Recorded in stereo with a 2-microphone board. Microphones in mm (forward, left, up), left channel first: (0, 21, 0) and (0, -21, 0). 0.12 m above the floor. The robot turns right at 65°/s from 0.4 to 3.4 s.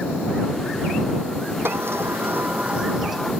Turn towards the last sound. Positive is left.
turn(degrees=15)